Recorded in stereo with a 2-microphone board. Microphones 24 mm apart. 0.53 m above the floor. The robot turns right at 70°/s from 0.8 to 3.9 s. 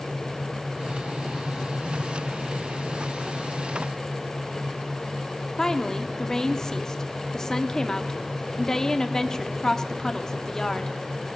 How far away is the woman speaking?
About 0.7 m.